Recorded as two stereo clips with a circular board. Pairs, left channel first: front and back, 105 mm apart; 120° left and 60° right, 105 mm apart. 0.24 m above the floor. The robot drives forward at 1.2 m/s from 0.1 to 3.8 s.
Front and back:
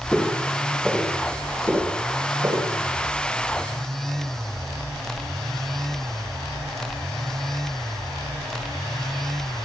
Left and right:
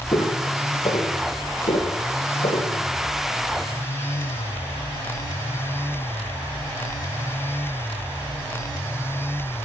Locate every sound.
0.1 s footsteps: 85° left, 6 m; by 2.7 s 125° left, 6 m